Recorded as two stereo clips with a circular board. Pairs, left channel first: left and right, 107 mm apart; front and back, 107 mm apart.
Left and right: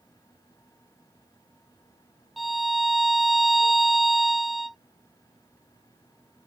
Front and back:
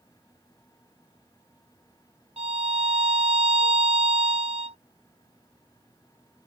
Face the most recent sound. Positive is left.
turn(degrees=180)